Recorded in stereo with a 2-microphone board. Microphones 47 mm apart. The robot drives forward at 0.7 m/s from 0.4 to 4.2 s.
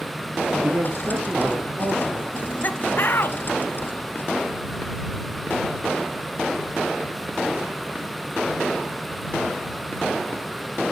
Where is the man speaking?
60° right (ahead or behind), 2.5 m; by 2.2 s 45° right (ahead or behind), 3.5 m.